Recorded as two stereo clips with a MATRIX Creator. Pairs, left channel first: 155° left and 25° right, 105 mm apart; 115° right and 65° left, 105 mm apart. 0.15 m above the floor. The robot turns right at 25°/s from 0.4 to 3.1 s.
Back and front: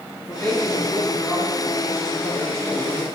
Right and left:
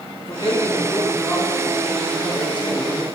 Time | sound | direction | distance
0.2 | a man speaking | 130° right | 3 m